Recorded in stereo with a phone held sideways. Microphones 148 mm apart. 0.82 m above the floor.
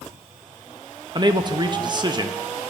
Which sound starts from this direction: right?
A man speaking, at 1.1 s.